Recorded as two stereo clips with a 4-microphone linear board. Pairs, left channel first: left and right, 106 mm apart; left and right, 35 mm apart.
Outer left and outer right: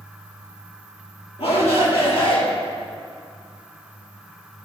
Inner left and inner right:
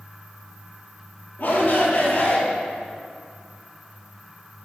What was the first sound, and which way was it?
A shout, 65° left (ahead or behind).